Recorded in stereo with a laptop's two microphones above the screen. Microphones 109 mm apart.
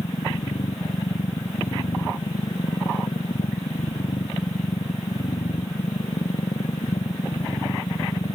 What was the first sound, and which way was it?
A machine running, 85° left.